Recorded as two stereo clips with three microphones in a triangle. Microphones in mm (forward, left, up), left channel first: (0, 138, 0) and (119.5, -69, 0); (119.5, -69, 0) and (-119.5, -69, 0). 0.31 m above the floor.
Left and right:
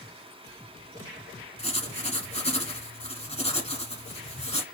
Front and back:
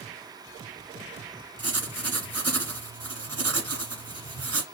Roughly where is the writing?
Behind.